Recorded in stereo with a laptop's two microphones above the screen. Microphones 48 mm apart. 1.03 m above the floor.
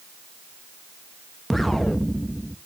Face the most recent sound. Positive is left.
turn(degrees=5)  # may be behind; listen again after turning